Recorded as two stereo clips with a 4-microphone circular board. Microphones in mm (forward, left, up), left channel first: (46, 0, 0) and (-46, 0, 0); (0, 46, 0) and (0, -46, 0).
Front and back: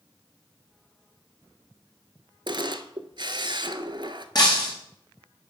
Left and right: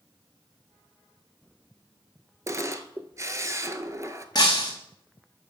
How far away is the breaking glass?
About 2 m.